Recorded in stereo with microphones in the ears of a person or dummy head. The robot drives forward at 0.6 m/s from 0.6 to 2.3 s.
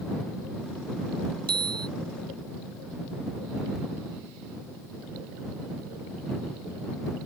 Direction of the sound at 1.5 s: 25° right (ahead or behind).